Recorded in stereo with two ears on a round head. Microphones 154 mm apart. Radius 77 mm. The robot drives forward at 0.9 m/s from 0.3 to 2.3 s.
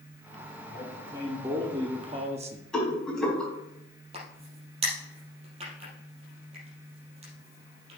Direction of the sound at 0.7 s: 15° right (ahead or behind).